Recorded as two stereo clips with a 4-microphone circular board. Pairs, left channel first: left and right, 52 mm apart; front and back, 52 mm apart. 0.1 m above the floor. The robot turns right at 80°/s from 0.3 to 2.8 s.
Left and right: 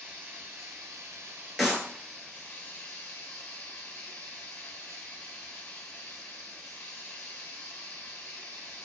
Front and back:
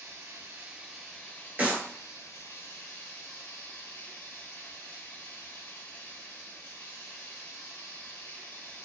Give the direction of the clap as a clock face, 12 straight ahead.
6 o'clock.